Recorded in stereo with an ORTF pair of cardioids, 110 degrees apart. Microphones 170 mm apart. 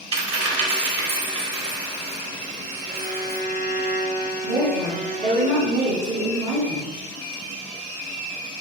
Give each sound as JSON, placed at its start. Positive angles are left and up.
{"t": 0.1, "sound": "a dropped coin", "azimuth_deg": -35, "distance_m": 1.6}
{"t": 2.9, "sound": "a violin", "azimuth_deg": -45, "distance_m": 1.0}
{"t": 4.4, "sound": "a woman speaking", "azimuth_deg": -50, "distance_m": 1.5}